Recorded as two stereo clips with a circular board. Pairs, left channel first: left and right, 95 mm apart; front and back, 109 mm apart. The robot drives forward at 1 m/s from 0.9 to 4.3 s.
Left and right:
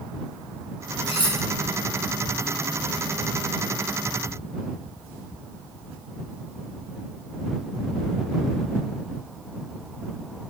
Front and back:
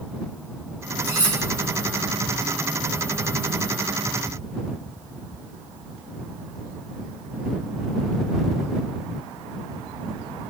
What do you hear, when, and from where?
1.1 s cutlery clinking: 75° left, 4.5 m